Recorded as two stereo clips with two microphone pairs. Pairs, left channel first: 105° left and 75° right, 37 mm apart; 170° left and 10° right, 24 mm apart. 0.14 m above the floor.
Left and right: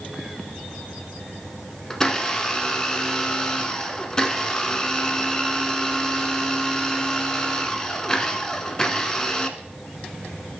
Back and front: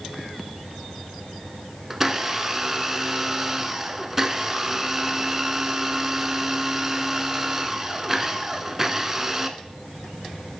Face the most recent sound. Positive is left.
turn(degrees=45)